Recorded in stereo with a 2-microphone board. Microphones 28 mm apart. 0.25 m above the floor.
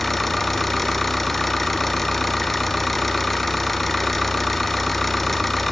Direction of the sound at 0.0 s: 5° left (ahead or behind).